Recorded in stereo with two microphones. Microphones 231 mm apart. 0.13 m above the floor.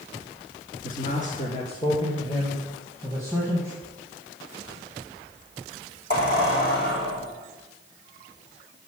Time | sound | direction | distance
0.8 | a man speaking | 35° left (ahead or behind) | 1.4 m
3.8 | a squeak | 40° left (ahead or behind) | 4 m